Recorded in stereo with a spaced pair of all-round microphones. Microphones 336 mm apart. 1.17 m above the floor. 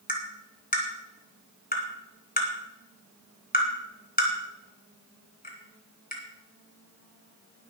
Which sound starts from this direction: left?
Tapping, at 0.1 s.